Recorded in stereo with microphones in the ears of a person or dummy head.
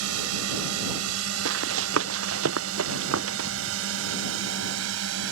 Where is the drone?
85° right; by 5.3 s 70° right (ahead or behind).